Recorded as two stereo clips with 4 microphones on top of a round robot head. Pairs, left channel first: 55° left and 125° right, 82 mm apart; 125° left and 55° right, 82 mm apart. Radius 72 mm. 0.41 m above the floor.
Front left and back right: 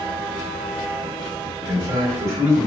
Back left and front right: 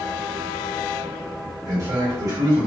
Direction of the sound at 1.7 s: 80° right.